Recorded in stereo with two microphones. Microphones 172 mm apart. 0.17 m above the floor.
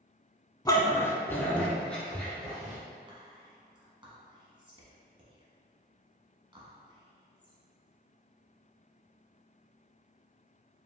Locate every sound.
0.7 s a dog barking: 20° left (ahead or behind), 0.5 m; by 2.8 s centre (ahead or behind), 1.6 m
3.1 s whispering: 30° right (ahead or behind), 1.3 m